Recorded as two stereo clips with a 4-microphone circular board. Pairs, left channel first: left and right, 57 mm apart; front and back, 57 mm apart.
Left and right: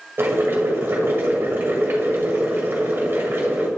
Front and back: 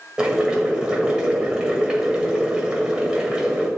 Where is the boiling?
110° right, 1.5 m.